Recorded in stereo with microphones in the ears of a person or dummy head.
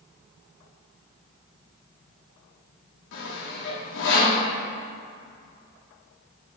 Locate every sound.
3.1 s sawing: 70° left (ahead or behind), 1.9 m